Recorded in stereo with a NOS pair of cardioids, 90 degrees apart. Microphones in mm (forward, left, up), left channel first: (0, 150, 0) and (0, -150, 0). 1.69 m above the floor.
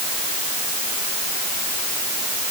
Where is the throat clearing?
I don't hear throat clearing.